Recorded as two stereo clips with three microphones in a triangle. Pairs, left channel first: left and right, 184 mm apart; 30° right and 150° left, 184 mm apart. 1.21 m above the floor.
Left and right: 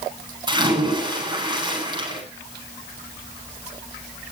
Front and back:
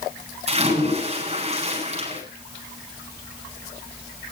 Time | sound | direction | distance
0.5 | a splash | 155° right | 9.5 m